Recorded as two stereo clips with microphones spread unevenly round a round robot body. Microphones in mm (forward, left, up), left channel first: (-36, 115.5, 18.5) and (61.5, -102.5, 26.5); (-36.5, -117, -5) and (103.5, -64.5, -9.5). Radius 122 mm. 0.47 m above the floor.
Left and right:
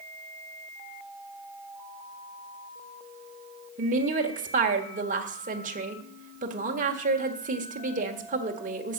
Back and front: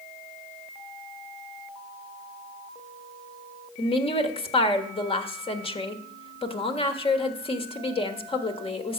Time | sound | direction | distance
3.8 | a woman speaking | 115° right | 1.5 m